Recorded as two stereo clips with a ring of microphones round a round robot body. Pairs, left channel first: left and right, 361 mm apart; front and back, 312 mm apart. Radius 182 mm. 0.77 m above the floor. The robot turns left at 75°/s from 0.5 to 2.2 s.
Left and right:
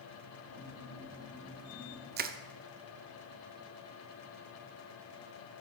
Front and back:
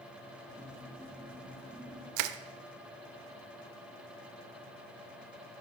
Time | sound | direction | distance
2.2 | crushing | 155° right | 0.5 m